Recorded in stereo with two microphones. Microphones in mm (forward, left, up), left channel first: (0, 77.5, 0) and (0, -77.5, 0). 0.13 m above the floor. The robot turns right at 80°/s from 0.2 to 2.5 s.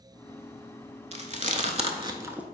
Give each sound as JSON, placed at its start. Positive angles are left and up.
{"t": 1.1, "sound": "chewing", "side_deg": -45, "distance_m": 0.5}